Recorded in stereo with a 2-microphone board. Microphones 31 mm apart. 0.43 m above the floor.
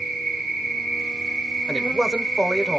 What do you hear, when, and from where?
0.0 s an insect: centre (ahead or behind), 2 m
1.7 s a man speaking: 10° right (ahead or behind), 1.2 m